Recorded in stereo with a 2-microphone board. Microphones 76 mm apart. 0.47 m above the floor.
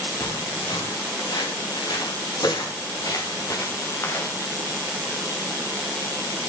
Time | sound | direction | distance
0.2 | footsteps | 85° left | 5.5 m